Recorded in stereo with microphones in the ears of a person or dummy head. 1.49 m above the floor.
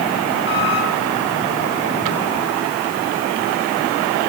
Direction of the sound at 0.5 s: 55° left (ahead or behind).